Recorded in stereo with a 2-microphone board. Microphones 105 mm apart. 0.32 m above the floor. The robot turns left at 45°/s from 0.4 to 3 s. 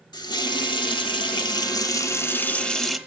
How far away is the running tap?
About 1.0 m.